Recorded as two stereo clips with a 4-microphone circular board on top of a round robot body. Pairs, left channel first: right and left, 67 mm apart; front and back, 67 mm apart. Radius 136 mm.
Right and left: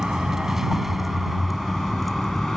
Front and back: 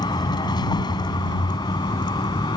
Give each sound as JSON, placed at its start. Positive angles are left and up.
{"t": 0.0, "sound": "a vehicle", "azimuth_deg": 10}